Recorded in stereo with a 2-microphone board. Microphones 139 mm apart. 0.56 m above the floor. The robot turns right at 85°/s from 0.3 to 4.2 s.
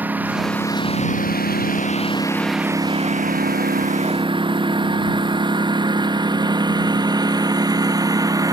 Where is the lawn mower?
10° right (ahead or behind); by 8.5 s 25° right (ahead or behind).